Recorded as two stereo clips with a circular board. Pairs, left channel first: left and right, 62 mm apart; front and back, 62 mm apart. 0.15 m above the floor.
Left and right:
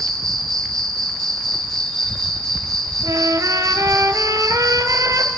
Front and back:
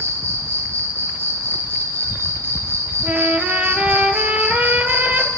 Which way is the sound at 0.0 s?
170° left.